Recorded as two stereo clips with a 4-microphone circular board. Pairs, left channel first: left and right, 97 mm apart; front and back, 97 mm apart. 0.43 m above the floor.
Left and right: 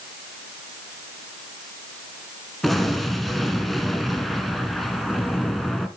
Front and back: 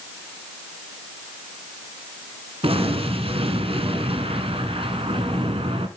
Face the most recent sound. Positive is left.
turn(degrees=180)